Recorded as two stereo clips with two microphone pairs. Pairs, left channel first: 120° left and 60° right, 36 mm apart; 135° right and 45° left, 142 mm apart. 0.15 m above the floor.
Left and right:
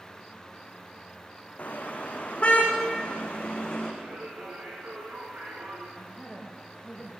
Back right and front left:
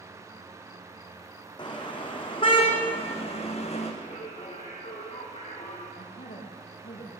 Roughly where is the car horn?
Behind.